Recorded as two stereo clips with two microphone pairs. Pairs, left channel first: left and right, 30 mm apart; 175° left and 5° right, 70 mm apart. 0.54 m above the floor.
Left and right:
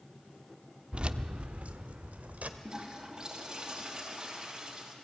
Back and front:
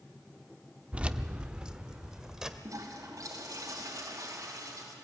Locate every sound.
0.9 s keys jangling: 65° right, 0.6 m; by 2.5 s 80° right, 1.4 m
2.6 s a toilet flushing: 30° right, 4.5 m